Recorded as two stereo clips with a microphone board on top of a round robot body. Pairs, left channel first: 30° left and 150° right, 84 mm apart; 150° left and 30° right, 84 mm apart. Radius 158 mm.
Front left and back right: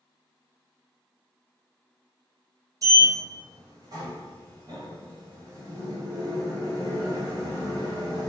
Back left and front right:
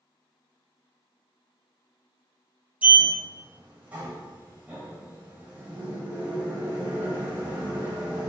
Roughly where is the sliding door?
Right.